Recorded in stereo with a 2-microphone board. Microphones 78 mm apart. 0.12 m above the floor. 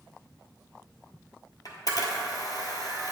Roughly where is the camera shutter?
Left.